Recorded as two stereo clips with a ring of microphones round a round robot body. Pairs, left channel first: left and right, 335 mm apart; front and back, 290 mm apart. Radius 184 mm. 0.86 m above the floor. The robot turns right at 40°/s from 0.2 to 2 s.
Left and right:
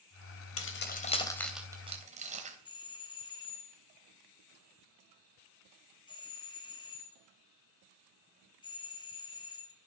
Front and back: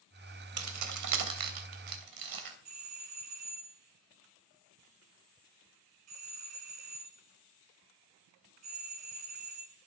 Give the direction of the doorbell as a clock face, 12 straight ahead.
6 o'clock.